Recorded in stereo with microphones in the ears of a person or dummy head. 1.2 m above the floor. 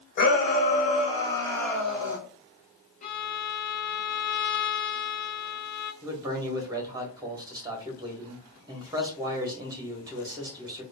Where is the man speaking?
20° right (ahead or behind), 1.2 m.